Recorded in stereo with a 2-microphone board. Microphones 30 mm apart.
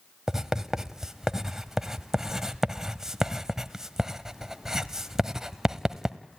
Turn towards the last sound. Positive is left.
turn(degrees=-15)  # may be behind; listen again after turning